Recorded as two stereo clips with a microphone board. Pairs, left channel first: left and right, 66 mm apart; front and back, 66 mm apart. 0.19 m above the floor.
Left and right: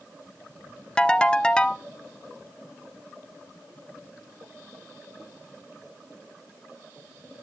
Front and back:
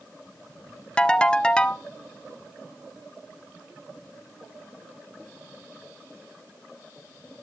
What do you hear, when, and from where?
1.0 s a ringtone: 40° left, 0.6 m